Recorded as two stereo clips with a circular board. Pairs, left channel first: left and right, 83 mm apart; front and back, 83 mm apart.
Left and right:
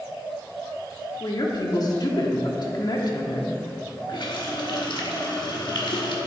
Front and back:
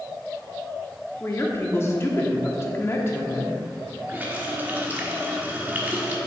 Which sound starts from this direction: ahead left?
A woman speaking, at 1.2 s.